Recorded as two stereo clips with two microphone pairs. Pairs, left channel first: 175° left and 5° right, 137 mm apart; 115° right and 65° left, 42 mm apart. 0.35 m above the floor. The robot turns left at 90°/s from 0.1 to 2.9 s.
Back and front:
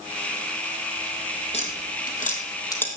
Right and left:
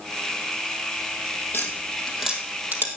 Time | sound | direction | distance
1.5 | tapping | 145° right | 2 m